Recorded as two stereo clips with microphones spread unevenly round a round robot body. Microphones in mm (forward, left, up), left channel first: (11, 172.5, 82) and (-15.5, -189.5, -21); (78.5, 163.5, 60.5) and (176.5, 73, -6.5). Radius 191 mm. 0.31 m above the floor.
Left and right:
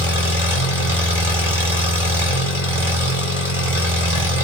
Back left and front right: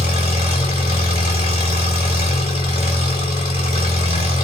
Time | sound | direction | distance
0.0 | an engine running | 145° right | 1.4 m